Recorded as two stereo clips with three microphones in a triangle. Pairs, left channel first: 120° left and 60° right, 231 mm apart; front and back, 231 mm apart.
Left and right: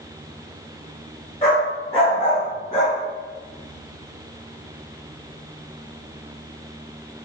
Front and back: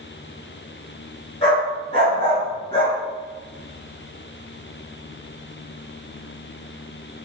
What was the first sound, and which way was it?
A dog barking, 60° left.